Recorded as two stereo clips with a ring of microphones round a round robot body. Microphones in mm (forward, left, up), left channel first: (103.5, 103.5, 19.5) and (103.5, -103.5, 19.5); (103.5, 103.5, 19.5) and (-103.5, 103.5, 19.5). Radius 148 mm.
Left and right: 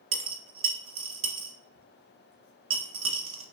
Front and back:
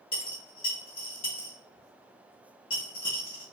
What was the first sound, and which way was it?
A dropped coin, 75° right.